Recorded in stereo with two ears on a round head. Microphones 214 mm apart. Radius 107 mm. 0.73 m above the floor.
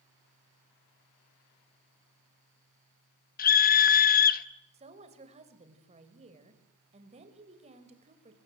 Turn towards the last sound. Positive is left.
turn(degrees=-30)  # may be behind; listen again after turning